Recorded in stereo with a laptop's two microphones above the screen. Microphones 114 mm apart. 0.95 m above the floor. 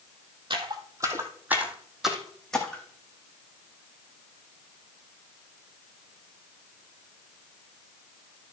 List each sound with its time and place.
0.5 s footsteps: 45° right (ahead or behind), 1.6 m; by 2.8 s 10° left (ahead or behind), 3 m